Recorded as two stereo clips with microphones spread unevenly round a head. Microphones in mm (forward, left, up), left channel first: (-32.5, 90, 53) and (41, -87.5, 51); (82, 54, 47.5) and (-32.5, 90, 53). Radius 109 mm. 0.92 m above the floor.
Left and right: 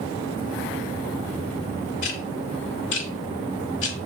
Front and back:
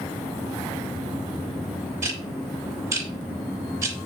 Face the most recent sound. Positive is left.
turn(degrees=105)